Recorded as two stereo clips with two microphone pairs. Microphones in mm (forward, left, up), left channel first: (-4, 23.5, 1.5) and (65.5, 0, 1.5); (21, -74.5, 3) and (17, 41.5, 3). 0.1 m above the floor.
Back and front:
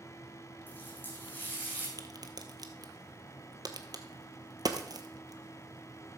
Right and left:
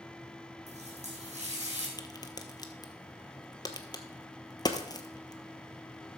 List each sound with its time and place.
0.7 s a running tap: 95° left, 3 m
2.0 s a crack: 35° right, 1.1 m